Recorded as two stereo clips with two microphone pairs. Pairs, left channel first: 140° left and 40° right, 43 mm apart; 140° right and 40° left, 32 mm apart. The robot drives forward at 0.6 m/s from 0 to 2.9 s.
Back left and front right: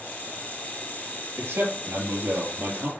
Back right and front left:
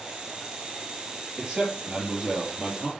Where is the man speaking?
30° right, 5 m; by 2.9 s 35° right, 4 m.